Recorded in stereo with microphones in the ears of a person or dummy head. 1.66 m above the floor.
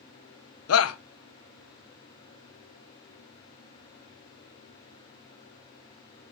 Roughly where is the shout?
Left.